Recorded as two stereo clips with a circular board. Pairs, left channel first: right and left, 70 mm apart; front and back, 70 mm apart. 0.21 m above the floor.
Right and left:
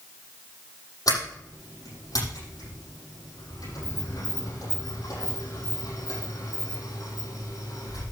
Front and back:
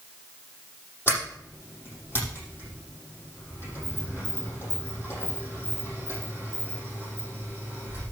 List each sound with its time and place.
1.1 s a sliding door: 60° right, 7 m